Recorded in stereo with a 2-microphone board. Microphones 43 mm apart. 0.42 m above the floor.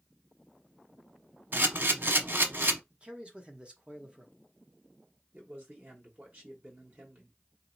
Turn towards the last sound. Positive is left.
turn(degrees=-40)  # may be behind; listen again after turning